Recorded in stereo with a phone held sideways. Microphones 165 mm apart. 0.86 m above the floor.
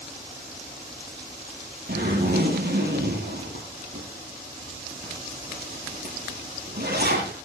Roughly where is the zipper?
Right.